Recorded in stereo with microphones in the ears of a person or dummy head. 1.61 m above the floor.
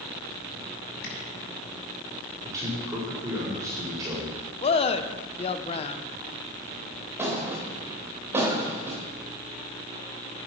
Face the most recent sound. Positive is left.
turn(degrees=-15)  # may be behind; listen again after turning